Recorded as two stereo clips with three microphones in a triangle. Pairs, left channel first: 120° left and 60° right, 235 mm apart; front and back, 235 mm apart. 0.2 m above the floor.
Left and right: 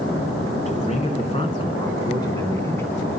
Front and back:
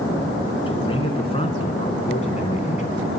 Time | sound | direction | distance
0.7 | a man speaking | 65° left | 2.5 m